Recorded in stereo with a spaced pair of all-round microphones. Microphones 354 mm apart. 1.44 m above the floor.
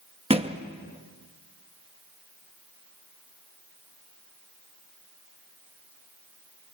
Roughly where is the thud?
Centre.